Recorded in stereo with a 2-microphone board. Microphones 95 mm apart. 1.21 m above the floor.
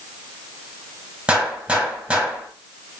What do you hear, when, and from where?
1.3 s a gunshot: 10° right (ahead or behind), 2 m